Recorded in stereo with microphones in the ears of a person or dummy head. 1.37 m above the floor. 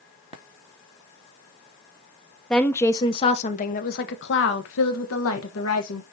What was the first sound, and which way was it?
A woman speaking, 5° left (ahead or behind).